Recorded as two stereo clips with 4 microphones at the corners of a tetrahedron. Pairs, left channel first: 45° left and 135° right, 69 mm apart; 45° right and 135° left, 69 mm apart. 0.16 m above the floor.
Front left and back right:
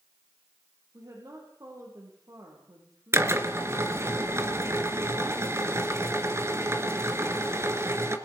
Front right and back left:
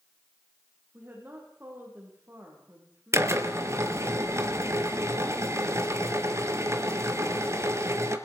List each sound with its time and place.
0.9 s a woman speaking: 165° right, 7.5 m
3.1 s a drill: straight behind, 2 m